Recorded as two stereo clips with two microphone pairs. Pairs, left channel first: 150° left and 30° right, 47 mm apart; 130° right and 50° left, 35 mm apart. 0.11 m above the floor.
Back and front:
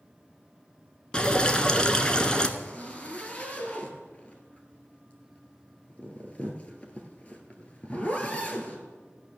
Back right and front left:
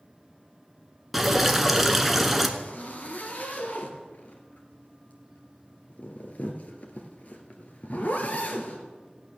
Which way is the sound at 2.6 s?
155° right.